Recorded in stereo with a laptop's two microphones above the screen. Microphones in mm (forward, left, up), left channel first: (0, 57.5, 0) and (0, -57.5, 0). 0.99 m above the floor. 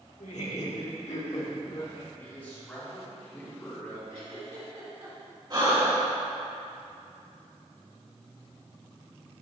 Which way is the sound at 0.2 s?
80° left.